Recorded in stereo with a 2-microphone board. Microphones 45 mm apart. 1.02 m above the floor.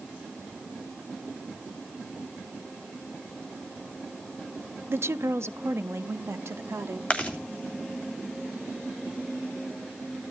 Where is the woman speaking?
60° right (ahead or behind), 0.6 m; by 7.0 s 70° right (ahead or behind), 2 m.